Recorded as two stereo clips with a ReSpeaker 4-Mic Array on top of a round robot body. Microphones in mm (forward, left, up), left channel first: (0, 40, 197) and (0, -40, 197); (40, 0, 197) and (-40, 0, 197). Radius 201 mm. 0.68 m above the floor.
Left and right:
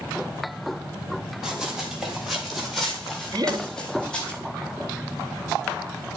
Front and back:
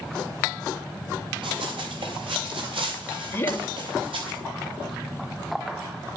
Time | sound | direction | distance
1.4 | running footsteps | 175° right | 9 m
3.3 | laughter | 60° right | 2.5 m